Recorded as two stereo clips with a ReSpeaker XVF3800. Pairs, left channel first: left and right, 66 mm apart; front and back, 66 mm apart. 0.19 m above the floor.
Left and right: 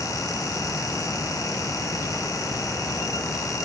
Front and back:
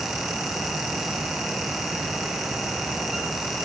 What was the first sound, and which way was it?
Only background noise.